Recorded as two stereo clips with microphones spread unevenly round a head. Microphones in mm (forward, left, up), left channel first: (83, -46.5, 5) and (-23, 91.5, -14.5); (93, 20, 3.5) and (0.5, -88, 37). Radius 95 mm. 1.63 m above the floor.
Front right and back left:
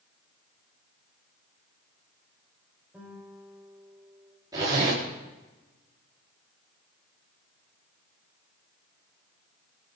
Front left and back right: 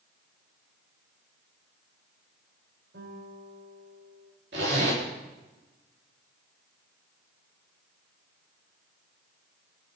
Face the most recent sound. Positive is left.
turn(degrees=-160)